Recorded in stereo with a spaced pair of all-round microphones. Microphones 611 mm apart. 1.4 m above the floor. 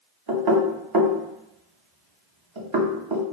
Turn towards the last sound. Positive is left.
turn(degrees=-40)  # may be behind; listen again after turning